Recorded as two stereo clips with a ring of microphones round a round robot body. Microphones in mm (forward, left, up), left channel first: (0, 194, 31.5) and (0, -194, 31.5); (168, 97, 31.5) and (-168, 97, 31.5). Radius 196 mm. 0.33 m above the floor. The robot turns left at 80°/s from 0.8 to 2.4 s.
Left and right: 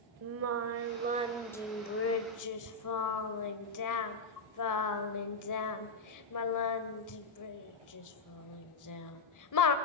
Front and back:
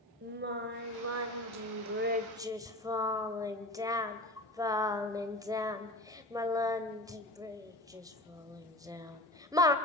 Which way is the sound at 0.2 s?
130° right.